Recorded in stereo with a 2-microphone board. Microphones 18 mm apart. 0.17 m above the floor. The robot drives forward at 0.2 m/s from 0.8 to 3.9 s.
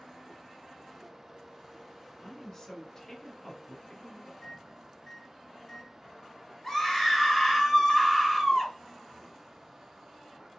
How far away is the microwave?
About 1.0 m.